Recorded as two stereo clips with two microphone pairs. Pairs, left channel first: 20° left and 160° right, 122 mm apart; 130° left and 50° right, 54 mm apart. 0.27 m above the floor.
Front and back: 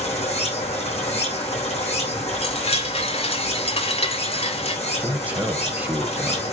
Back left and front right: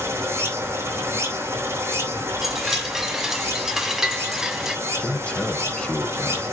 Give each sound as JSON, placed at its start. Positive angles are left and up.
{"t": 0.0, "sound": "running water", "azimuth_deg": -15, "distance_m": 3.5}
{"t": 2.4, "sound": "a chime", "azimuth_deg": 30, "distance_m": 1.4}
{"t": 4.9, "sound": "a man speaking", "azimuth_deg": 150, "distance_m": 1.2}